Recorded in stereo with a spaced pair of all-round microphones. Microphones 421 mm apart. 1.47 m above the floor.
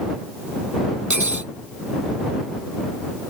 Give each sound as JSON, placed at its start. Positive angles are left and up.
{"t": 1.1, "sound": "cutlery clinking", "side_deg": -45}